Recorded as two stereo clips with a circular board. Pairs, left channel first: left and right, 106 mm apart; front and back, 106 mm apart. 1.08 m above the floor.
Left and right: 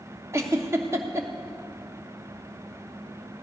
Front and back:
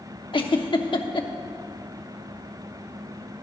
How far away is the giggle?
About 1.0 m.